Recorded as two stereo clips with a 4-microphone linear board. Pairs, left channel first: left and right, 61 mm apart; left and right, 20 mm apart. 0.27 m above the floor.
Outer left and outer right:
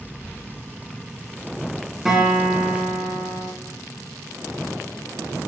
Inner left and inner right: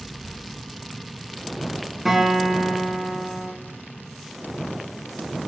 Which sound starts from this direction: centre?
A guitar, at 2.0 s.